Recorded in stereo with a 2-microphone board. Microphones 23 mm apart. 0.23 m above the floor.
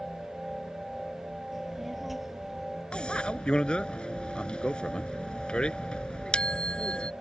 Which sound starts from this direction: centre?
A child speaking, at 1.5 s.